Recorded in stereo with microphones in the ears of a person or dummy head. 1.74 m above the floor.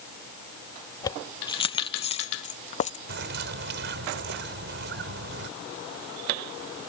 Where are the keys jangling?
20° left (ahead or behind); by 3.0 s 40° left (ahead or behind).